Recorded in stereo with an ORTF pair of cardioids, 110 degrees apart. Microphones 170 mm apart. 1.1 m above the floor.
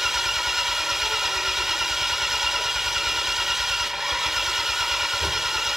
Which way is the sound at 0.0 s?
Straight ahead.